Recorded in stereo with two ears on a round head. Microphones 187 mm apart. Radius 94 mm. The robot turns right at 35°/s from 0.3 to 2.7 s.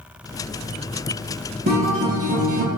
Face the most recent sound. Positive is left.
turn(degrees=-85)